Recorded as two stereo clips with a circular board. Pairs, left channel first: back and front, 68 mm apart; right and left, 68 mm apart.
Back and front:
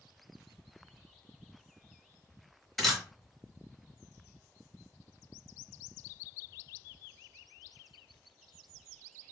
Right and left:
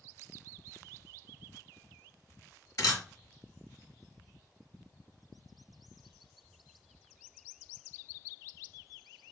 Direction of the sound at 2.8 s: 90° right.